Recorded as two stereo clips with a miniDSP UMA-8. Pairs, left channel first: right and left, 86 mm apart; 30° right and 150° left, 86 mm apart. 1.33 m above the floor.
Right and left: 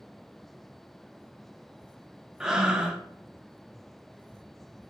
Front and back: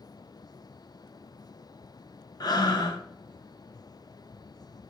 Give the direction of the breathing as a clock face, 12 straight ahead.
12 o'clock.